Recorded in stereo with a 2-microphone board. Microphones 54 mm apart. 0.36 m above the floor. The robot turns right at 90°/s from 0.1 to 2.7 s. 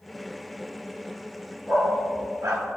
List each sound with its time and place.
1.7 s a dog barking: 30° right (ahead or behind), 1.9 m; by 2.6 s 60° right (ahead or behind), 1.9 m